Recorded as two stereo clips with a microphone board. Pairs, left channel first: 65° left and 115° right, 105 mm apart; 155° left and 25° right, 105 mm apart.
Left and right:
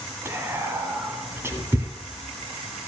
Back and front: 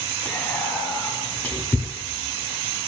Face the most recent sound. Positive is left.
turn(degrees=-150)